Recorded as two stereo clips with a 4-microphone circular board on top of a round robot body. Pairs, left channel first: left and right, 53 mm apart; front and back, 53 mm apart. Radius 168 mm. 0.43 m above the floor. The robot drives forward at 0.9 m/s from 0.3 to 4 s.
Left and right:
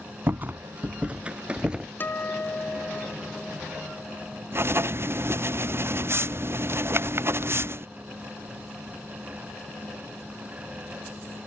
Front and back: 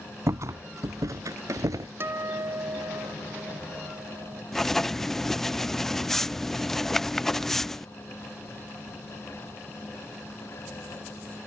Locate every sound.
0.3 s a rattle: 145° right; by 1.9 s 165° right
2.0 s a guitar: 140° left; by 4.4 s 170° left
4.5 s writing: 80° right